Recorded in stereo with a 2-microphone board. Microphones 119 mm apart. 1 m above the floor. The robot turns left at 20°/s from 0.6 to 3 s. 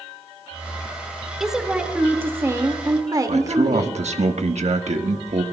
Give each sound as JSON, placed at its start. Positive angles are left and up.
{"t": 1.4, "sound": "a woman speaking", "azimuth_deg": 0, "distance_m": 1.9}
{"t": 3.3, "sound": "a man speaking", "side_deg": -70, "distance_m": 1.3}